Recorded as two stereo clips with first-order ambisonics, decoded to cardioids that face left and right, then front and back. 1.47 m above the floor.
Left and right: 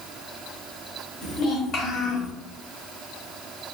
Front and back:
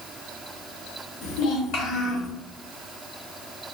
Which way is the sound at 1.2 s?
40° left.